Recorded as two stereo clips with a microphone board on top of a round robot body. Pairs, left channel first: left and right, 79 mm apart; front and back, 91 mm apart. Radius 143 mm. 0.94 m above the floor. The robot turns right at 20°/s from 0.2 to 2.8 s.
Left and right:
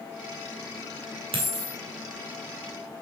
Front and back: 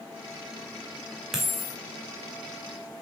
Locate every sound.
1.3 s a dropped coin: 95° right, 2 m; by 1.8 s 85° right, 2 m